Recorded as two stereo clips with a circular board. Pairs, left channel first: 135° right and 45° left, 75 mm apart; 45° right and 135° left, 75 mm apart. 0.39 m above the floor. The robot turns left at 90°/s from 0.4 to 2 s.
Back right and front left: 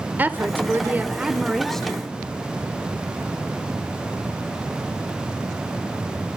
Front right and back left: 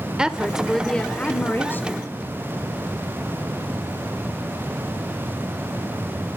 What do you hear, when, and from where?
0.2 s a woman speaking: 65° left, 0.9 m; by 2.1 s 75° right, 0.9 m